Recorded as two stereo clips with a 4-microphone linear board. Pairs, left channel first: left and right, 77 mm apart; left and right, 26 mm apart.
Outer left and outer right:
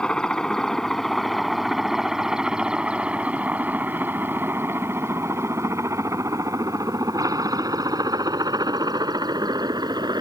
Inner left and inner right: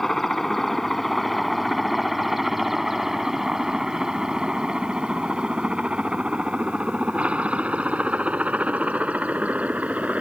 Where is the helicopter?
10° left (ahead or behind); by 10.2 s 65° right (ahead or behind).